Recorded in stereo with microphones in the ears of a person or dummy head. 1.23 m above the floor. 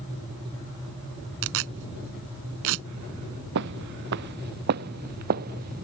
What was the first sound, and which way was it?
Tearing paper, 70° right (ahead or behind).